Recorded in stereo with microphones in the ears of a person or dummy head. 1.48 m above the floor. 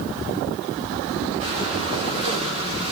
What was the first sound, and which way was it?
Breathing, 35° right (ahead or behind).